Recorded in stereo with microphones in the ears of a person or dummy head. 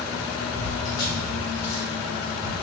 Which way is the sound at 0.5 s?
35° left (ahead or behind).